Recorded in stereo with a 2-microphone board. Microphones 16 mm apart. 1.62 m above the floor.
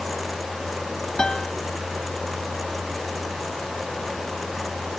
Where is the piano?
55° left (ahead or behind).